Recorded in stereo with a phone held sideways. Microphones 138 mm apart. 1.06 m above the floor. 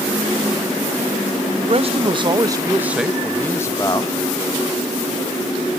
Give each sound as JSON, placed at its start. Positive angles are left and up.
{"t": 1.6, "sound": "a man speaking", "side_deg": -50, "distance_m": 1.1}